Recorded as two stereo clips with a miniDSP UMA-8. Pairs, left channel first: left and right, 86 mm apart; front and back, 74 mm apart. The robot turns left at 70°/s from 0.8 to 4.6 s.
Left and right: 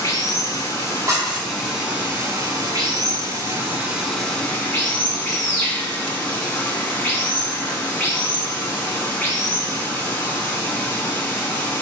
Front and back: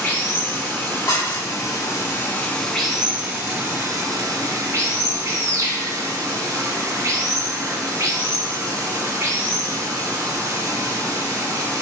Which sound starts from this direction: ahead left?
Running water, at 0.0 s.